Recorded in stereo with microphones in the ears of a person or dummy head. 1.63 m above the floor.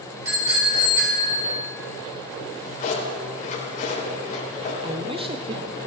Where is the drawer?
40° left (ahead or behind), 4 m.